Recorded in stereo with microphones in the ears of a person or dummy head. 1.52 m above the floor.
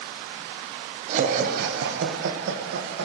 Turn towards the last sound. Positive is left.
turn(degrees=-80)